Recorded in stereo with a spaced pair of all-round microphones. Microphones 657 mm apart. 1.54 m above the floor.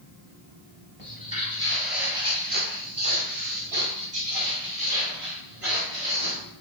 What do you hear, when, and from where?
1.0 s footsteps: 15° left (ahead or behind), 1.6 m; by 6.4 s 50° right (ahead or behind), 3 m